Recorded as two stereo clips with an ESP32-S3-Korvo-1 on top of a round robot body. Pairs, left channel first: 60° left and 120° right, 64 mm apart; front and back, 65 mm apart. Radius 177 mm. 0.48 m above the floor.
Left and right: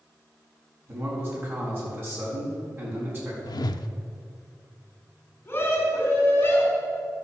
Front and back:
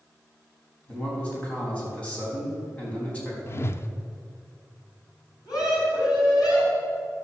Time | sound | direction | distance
0.9 | a man speaking | 70° right | 5 m
3.5 | a whoosh | 50° left | 0.5 m
5.5 | a scream | straight ahead | 4.5 m